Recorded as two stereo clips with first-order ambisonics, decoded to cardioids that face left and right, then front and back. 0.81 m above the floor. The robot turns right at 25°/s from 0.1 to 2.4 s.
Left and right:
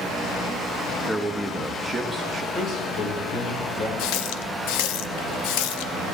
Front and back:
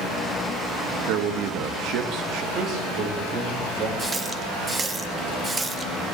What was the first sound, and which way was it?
A man speaking, 170° left.